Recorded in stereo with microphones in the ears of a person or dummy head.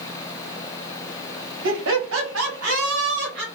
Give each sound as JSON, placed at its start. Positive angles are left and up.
{"t": 1.6, "sound": "laughter", "side_deg": -70, "distance_m": 1.3}